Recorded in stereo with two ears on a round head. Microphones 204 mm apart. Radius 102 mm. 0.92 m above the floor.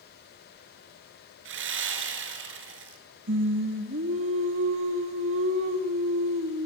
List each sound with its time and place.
1.4 s sawing: 60° right (ahead or behind), 3.5 m
3.3 s singing: 60° right (ahead or behind), 2 m